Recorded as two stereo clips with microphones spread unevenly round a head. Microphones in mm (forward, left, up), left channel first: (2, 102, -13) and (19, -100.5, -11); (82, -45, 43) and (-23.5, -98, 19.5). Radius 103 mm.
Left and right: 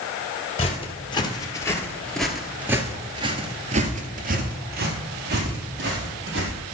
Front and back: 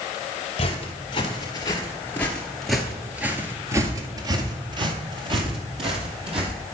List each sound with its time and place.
0.6 s footsteps: 40° left, 2 m; by 6.5 s 115° right, 3 m